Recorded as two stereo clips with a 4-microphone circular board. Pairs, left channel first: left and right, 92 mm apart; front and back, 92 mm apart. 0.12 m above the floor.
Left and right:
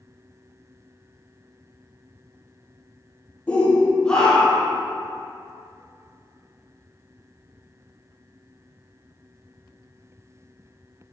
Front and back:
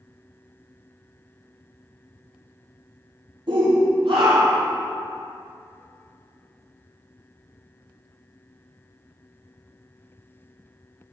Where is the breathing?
No breathing in this recording.